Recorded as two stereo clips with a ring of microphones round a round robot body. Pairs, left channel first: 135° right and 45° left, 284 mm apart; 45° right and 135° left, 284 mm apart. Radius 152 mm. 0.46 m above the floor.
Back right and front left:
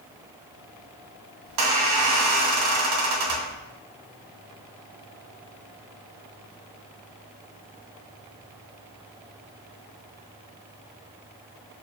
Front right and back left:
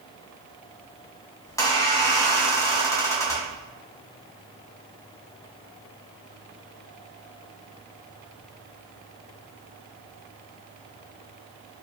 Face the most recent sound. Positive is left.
turn(degrees=35)